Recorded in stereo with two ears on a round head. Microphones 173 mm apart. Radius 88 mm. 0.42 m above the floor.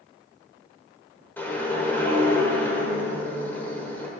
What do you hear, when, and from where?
1.4 s a whoosh: 10° left (ahead or behind), 1.1 m